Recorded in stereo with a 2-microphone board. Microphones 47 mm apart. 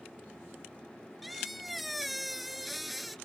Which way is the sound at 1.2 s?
Centre (ahead or behind).